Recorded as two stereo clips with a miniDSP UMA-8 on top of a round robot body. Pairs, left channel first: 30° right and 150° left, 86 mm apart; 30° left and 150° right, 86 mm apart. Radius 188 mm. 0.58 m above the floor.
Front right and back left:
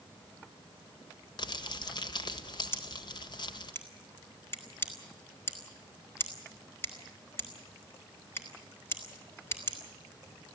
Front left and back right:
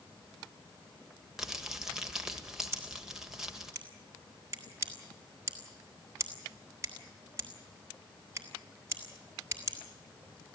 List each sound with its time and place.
1.4 s crumpling: 65° right, 1.4 m
2.7 s scissors: 90° right, 3.5 m